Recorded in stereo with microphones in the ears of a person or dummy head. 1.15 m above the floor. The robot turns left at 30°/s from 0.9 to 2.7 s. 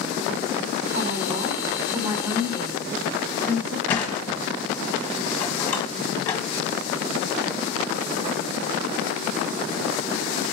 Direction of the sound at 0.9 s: 115° right.